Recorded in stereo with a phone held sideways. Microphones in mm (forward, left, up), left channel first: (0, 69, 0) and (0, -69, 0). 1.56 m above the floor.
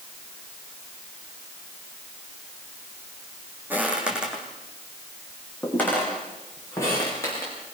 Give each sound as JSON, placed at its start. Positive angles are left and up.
{"t": 3.7, "sound": "footsteps", "side_deg": -15, "distance_m": 4.5}